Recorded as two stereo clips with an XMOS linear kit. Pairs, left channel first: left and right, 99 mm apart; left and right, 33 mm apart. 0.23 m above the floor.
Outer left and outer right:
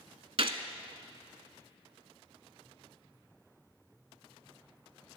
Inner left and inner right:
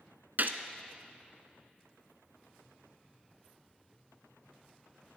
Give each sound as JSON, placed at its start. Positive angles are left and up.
{"t": 0.4, "sound": "a gunshot", "side_deg": -65, "distance_m": 0.7}